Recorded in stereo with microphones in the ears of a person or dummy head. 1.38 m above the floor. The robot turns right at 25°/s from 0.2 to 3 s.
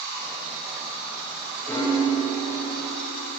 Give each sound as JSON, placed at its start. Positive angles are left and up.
{"t": 1.7, "sound": "a piano", "azimuth_deg": 10, "distance_m": 1.7}